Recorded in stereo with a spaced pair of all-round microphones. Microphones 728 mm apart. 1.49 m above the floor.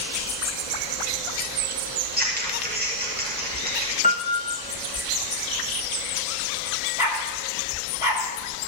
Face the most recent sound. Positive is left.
turn(degrees=45)  # may be behind; listen again after turning